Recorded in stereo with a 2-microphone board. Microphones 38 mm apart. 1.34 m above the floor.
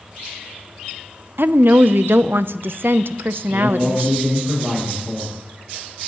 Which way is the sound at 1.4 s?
70° right (ahead or behind).